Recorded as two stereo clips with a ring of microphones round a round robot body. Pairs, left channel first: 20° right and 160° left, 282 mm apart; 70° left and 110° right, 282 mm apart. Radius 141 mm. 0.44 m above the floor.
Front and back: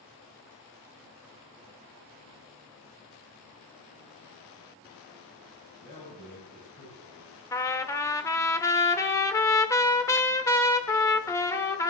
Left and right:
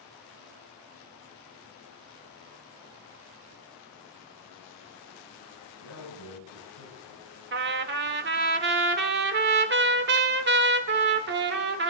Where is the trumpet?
95° right, 1.2 m.